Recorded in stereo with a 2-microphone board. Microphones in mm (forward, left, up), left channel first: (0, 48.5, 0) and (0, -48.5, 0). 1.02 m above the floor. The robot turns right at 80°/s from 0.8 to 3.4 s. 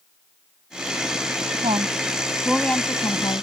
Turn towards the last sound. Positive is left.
turn(degrees=70)